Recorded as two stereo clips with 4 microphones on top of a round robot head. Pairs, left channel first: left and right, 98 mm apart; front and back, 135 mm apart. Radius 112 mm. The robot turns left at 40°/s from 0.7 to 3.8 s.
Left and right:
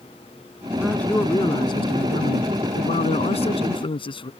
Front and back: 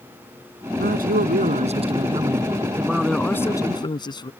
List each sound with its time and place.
0.8 s a man speaking: straight behind; by 4.3 s 60° left